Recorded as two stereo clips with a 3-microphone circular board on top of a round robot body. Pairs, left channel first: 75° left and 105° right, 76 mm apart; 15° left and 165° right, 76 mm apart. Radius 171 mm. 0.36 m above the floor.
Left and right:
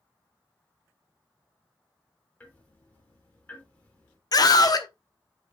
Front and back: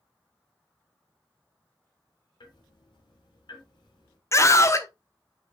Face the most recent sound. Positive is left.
turn(degrees=55)